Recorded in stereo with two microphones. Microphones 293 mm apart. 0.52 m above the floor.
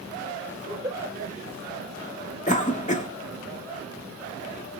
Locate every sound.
0.7 s a giggle: 10° right (ahead or behind), 1.9 m
2.5 s a cough: 25° left (ahead or behind), 0.7 m